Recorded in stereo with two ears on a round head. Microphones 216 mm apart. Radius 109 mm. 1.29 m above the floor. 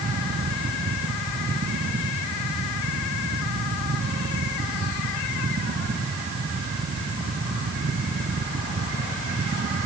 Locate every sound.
Only background noise.